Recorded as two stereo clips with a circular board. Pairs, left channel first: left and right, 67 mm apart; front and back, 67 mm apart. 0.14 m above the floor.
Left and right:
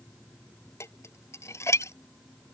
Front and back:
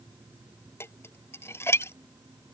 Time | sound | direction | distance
0.8 | dishes clattering | 45° left | ?